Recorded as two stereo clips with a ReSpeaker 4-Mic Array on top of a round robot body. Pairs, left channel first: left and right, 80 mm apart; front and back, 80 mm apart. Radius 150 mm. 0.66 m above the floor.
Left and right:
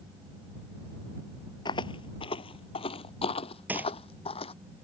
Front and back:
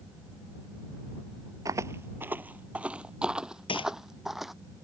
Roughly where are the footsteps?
Behind left.